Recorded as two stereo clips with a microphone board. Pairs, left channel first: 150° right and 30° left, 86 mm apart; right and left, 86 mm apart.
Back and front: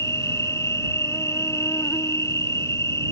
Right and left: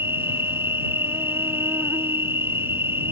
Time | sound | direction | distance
0.0 | an insect | 155° left | ?